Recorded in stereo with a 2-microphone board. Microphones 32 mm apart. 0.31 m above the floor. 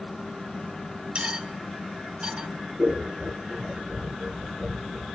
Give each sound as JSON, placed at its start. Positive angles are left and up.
{"t": 1.1, "sound": "cutlery clinking", "side_deg": -30, "distance_m": 1.9}
{"t": 2.8, "sound": "scissors", "side_deg": 5, "distance_m": 3.5}